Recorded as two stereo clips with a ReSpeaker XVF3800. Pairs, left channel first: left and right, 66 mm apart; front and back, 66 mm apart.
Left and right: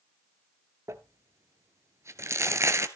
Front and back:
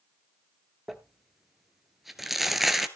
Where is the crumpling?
95° right, 1.1 m.